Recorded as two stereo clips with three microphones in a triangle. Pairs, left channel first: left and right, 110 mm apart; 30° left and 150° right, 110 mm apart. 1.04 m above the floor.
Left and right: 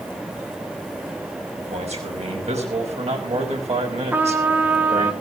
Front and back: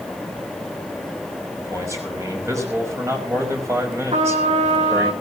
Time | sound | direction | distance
1.6 | a man speaking | 90° right | 6 m
4.1 | a trumpet | 165° right | 2 m